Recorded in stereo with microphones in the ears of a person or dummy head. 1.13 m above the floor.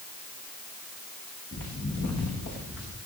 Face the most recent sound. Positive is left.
turn(degrees=45)  # may be behind; listen again after turning